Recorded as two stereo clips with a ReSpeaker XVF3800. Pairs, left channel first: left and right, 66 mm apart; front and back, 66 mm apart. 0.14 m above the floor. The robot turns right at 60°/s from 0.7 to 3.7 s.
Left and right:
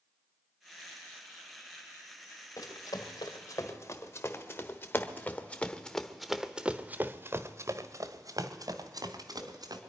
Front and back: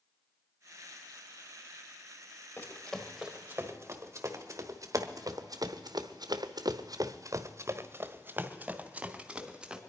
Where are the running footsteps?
55° left, 2.5 m; by 9.8 s 100° right, 2 m.